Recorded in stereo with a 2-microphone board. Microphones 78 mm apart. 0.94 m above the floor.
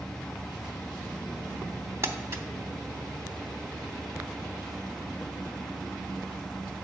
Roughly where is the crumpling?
Right.